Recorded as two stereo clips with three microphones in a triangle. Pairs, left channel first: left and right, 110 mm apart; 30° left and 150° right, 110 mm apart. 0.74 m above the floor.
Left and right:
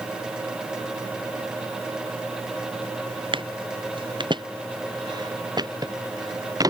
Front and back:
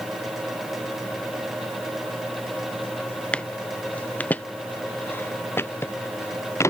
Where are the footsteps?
50° right; by 6.7 s 35° right.